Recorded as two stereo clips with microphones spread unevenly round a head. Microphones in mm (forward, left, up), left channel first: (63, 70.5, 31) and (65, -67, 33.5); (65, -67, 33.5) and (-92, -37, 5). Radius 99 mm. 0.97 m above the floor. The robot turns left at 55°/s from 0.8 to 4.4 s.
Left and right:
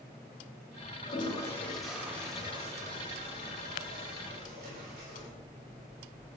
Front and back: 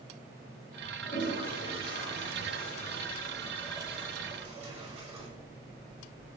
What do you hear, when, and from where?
1.1 s a toilet flushing: 45° left, 5 m; by 5.3 s 140° right, 5 m